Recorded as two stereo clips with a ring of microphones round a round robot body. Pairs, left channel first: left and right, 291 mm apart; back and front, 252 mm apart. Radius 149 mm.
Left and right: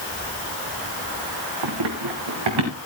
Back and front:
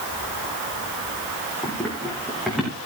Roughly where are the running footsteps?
Right.